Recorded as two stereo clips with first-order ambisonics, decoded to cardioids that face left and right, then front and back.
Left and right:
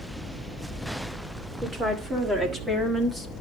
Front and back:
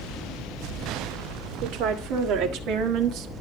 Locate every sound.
1.6 s a woman speaking: 160° right, 2.0 m; by 3.3 s 175° right, 1.3 m